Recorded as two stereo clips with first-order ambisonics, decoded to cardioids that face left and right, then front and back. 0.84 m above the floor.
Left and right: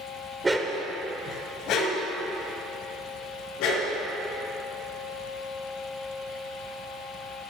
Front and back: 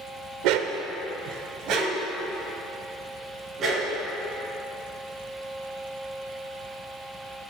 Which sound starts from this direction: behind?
A dog barking, at 0.4 s.